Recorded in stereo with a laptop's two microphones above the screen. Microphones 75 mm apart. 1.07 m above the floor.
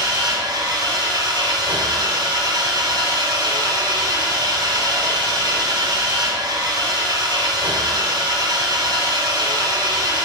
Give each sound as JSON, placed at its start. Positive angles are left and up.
{"t": 0.0, "sound": "an engine running", "side_deg": -80, "distance_m": 5.0}